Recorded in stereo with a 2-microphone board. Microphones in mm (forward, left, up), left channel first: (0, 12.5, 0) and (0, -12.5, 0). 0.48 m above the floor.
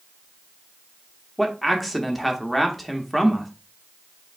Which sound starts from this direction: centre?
A man speaking, at 1.4 s.